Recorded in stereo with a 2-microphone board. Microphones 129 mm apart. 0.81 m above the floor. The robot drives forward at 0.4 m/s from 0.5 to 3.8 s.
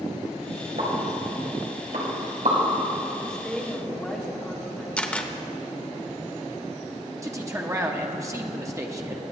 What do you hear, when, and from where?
0.8 s a pop: 85° right, 3.5 m; by 2.6 s 75° right (ahead or behind), 3.5 m
3.3 s a woman speaking: 5° left (ahead or behind), 2.0 m
5.0 s a camera shutter: 10° left (ahead or behind), 0.7 m
7.2 s a man speaking: 25° right (ahead or behind), 1.0 m